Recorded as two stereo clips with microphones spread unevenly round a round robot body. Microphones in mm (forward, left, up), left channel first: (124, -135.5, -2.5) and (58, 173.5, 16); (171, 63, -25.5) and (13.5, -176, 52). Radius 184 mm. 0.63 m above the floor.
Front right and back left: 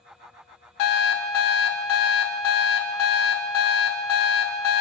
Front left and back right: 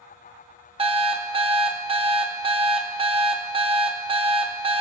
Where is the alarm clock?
50° right, 0.7 m.